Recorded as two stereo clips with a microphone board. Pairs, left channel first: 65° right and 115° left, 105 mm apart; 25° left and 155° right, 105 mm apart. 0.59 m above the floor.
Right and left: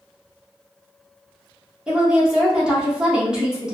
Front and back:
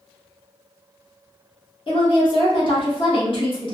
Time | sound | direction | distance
1.9 | a woman speaking | 30° left | 1.0 m